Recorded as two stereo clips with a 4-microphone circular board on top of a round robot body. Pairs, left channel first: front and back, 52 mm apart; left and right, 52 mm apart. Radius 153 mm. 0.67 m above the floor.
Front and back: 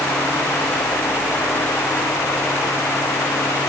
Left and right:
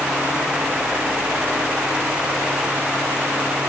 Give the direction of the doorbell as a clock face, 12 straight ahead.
No doorbell in this recording.